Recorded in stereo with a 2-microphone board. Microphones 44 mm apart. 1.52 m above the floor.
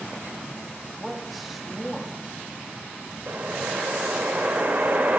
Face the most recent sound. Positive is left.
turn(degrees=-55)  # may be behind; listen again after turning